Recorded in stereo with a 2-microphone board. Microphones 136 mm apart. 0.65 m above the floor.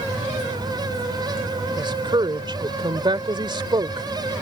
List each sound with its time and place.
1.8 s a woman speaking: 35° right (ahead or behind)